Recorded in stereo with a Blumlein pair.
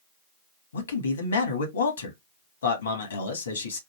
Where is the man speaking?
70° left, 1.9 m.